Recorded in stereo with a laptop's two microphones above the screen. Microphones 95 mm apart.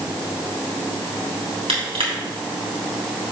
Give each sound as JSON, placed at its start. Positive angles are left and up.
{"t": 1.7, "sound": "crushing", "side_deg": -80, "distance_m": 3.0}